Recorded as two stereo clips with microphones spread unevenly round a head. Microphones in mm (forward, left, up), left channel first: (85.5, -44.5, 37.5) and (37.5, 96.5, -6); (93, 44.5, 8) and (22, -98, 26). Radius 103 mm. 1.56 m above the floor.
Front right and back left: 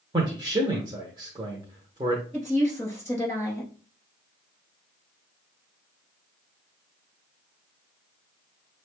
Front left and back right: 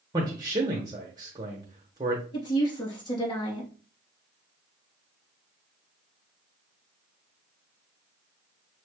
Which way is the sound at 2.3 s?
10° left.